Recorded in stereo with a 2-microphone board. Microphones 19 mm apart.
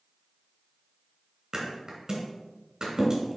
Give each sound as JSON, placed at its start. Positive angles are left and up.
{"t": 1.5, "sound": "a thud", "side_deg": -35, "distance_m": 2.5}